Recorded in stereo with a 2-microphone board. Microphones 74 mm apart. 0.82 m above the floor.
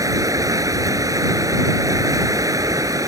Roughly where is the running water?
Right.